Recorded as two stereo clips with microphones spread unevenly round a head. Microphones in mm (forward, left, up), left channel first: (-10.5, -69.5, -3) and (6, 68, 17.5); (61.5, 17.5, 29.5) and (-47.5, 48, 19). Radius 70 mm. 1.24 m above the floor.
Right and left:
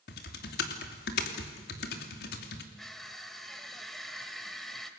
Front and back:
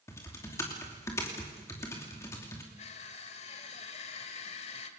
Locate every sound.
0.1 s typing on a keyboard: 85° right, 2.5 m
2.8 s crushing: 5° right, 1.7 m